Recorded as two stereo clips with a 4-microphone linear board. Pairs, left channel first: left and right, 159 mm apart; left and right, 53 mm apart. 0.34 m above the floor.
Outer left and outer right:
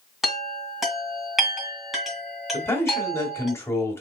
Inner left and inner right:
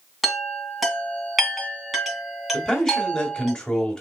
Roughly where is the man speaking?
Centre.